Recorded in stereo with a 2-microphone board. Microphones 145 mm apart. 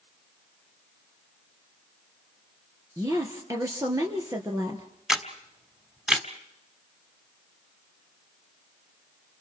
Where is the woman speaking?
20° right (ahead or behind), 3.5 m.